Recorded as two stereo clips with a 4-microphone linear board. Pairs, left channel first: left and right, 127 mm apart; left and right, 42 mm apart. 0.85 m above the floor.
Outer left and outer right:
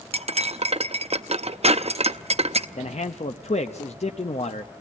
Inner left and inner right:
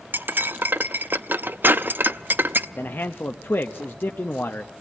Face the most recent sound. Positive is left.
turn(degrees=55)  # may be behind; listen again after turning